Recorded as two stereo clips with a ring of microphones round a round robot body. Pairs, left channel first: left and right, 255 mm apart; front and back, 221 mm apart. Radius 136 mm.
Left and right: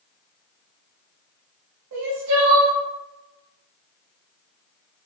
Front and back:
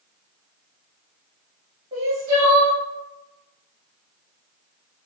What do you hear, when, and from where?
1.9 s crying: 115° right, 0.8 m